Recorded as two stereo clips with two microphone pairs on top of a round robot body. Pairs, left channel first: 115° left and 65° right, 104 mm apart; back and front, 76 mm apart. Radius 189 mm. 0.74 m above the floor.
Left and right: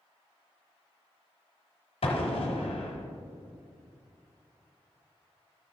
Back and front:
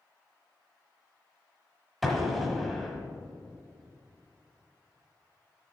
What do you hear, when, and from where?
2.0 s an explosion: 85° left, 1.0 m